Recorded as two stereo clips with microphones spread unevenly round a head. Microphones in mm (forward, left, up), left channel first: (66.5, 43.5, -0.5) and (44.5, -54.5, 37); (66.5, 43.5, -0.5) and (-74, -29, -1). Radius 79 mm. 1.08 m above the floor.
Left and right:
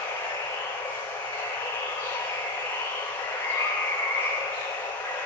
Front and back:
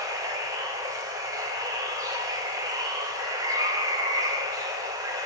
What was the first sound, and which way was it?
Running water, 140° left.